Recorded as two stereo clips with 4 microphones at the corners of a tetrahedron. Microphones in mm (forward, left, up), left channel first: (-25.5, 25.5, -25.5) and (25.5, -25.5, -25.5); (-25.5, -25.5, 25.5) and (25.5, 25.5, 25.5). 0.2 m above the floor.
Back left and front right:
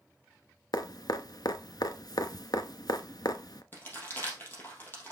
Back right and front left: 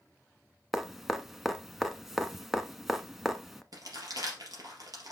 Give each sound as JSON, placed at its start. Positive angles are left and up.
{"t": 0.7, "sound": "dripping", "azimuth_deg": 130, "distance_m": 0.7}
{"t": 3.7, "sound": "crumpling", "azimuth_deg": 75, "distance_m": 3.5}